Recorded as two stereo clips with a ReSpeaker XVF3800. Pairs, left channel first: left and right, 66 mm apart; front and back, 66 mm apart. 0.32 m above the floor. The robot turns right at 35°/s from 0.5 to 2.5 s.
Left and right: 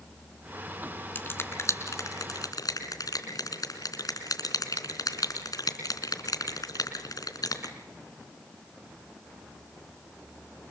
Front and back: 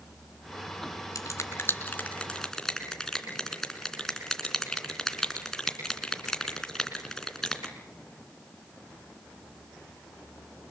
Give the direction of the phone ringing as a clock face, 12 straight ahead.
I don't hear a phone ringing.